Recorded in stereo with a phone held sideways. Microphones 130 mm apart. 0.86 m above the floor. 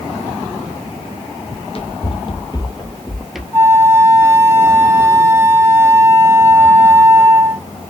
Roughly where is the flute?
Centre.